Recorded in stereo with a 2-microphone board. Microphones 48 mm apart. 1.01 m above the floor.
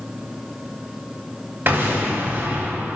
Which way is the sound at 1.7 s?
50° right (ahead or behind).